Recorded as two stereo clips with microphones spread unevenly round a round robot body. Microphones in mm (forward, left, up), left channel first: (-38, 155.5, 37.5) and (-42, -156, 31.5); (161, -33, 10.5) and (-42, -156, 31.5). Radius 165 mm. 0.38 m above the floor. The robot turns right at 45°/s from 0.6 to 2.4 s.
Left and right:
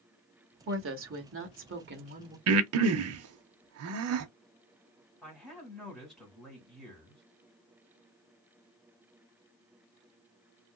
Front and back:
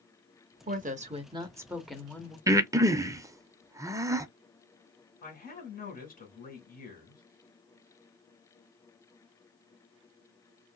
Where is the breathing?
70° right, 0.5 m.